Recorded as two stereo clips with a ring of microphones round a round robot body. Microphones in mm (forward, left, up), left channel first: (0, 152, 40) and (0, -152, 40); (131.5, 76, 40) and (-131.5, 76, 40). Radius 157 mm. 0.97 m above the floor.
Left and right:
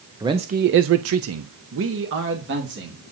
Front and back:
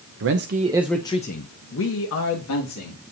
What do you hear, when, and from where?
0.2 s a man speaking: 165° right, 0.7 m; by 3.0 s 35° right, 1.9 m